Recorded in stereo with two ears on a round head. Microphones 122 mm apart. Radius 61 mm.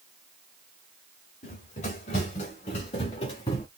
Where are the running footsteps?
55° left (ahead or behind), 3 m; by 3.7 s 35° left (ahead or behind), 2 m.